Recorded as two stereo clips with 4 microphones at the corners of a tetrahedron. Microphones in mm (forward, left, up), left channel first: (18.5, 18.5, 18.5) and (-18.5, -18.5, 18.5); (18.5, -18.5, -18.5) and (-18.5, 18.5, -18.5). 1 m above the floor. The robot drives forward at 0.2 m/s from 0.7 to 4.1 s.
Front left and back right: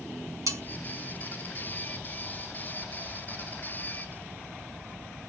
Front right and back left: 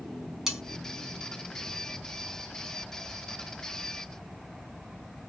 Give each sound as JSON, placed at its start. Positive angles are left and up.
{"t": 0.5, "sound": "cutlery clinking", "azimuth_deg": -145, "distance_m": 1.6}